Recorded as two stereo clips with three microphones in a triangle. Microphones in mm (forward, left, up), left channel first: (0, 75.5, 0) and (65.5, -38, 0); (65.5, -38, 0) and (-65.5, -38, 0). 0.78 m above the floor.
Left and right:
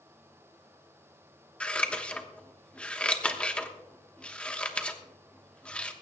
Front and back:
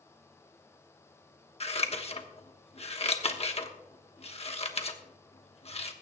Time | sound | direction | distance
1.6 | scissors | 35° left | 1.2 m